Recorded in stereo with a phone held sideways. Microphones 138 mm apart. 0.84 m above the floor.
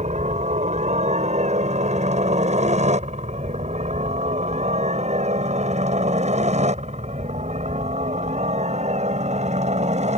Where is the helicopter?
55° right (ahead or behind).